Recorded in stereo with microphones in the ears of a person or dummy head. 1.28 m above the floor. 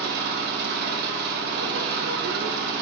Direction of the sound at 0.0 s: 55° right (ahead or behind).